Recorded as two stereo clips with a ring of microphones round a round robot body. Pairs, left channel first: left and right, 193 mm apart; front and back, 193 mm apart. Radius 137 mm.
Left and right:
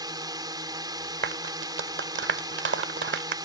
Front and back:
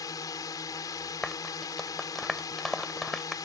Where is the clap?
90° right.